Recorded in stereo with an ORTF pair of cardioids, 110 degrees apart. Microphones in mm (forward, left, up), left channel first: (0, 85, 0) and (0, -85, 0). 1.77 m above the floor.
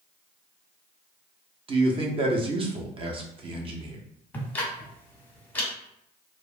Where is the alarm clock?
I don't hear an alarm clock.